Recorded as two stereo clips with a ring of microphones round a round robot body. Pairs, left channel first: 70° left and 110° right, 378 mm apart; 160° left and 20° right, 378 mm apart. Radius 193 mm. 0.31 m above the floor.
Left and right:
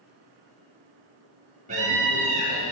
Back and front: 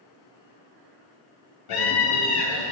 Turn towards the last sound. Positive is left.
turn(degrees=180)